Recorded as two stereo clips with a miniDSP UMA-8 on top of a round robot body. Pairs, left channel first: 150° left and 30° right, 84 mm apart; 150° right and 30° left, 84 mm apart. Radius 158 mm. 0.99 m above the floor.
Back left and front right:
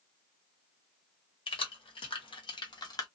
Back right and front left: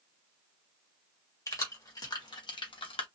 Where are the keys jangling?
155° left, 1.3 m; by 3.1 s 165° right, 0.7 m.